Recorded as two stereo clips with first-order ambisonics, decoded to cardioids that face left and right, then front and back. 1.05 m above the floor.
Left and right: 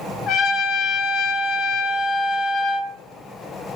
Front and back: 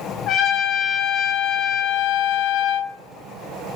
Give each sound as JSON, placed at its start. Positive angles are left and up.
{"t": 0.3, "sound": "a trumpet", "azimuth_deg": 50, "distance_m": 1.6}